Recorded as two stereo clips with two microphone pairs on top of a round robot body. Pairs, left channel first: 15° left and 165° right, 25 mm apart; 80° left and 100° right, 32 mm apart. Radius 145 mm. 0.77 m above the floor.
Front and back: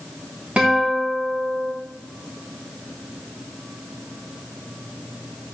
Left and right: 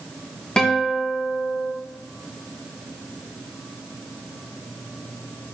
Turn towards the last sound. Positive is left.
turn(degrees=145)